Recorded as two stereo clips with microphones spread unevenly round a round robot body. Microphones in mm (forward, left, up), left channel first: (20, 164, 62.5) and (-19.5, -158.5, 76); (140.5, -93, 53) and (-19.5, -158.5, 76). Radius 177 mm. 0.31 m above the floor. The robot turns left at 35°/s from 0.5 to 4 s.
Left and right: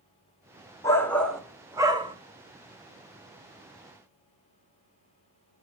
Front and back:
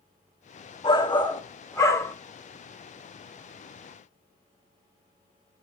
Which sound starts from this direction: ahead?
A shout, at 0.8 s.